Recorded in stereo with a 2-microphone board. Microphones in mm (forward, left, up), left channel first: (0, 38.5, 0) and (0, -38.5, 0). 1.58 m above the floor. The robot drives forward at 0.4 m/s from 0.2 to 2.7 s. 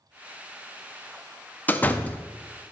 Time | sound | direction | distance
1.7 | a door slam | 20° left (ahead or behind) | 0.5 m